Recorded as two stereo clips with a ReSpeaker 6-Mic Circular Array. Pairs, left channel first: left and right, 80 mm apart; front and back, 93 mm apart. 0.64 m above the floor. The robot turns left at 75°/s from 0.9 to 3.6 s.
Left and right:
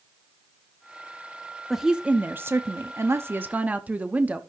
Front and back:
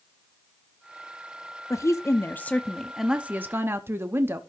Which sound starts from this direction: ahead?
A woman speaking, at 1.7 s.